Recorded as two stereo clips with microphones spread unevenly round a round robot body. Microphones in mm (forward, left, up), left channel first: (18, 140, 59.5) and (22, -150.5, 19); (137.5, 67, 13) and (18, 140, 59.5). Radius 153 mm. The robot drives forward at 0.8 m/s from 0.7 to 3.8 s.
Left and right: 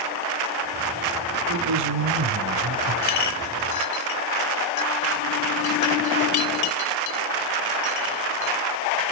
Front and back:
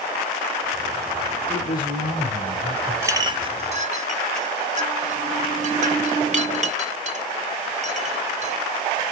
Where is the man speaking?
95° right, 3.5 m; by 2.9 s 110° right, 3.5 m.